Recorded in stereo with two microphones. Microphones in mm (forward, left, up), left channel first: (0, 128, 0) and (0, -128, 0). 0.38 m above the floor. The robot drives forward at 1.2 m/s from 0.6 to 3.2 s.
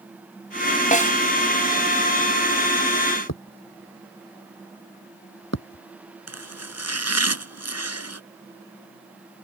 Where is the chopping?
75° right (ahead or behind).